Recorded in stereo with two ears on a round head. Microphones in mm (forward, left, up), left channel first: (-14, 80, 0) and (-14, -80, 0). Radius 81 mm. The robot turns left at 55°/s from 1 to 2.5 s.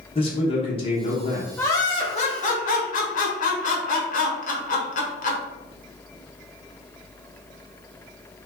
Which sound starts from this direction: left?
A man speaking, at 0.1 s.